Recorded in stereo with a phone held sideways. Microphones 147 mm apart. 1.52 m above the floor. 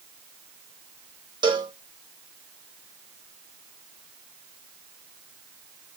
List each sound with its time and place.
1.4 s a cowbell: 30° right (ahead or behind), 1.2 m